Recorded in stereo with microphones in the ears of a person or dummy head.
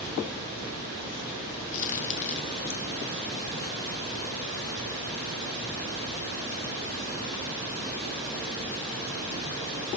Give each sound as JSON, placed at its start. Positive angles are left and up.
{"t": 1.7, "sound": "a crack", "side_deg": 40, "distance_m": 1.0}